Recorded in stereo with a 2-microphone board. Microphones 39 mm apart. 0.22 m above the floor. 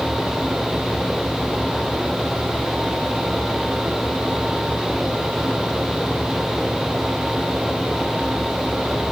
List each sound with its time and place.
Only background noise.